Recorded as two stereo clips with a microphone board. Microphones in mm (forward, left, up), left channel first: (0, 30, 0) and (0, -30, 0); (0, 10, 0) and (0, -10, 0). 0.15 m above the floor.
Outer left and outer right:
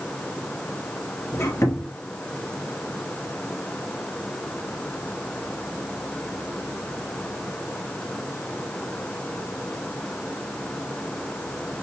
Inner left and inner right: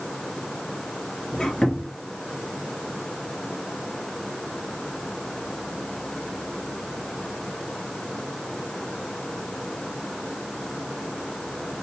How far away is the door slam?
I don't hear a door slam.